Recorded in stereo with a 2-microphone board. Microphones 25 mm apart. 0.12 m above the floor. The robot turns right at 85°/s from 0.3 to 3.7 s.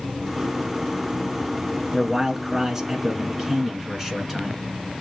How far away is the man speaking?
About 1.4 m.